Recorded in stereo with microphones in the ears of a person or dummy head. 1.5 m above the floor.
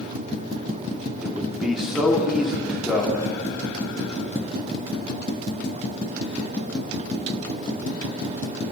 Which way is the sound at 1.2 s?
5° right (ahead or behind).